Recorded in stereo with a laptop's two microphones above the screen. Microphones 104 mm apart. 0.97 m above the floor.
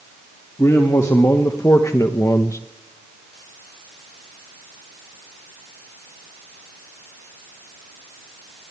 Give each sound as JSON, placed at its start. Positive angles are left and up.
{"t": 0.6, "sound": "a man speaking", "side_deg": 30, "distance_m": 2.0}